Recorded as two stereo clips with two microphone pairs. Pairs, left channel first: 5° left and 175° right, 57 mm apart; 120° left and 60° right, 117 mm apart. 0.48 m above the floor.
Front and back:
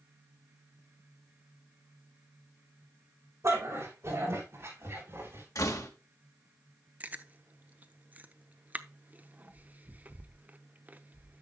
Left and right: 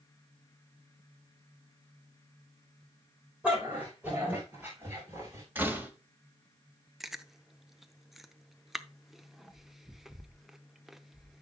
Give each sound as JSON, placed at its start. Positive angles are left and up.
{"t": 3.4, "sound": "a dog barking", "azimuth_deg": -140, "distance_m": 7.0}
{"t": 5.5, "sound": "a door slam", "azimuth_deg": 10, "distance_m": 1.8}
{"t": 7.0, "sound": "chewing", "azimuth_deg": -150, "distance_m": 0.7}